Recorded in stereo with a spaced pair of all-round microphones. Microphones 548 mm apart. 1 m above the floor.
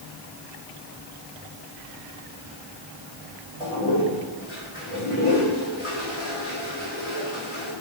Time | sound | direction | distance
3.6 | a toilet flushing | 85° left | 4.5 m